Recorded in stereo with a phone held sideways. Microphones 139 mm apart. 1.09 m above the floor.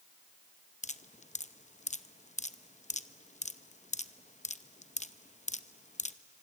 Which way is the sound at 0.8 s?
60° left (ahead or behind).